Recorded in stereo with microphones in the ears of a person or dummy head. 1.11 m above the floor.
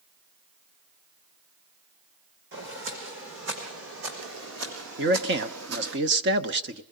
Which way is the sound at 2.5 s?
60° right (ahead or behind).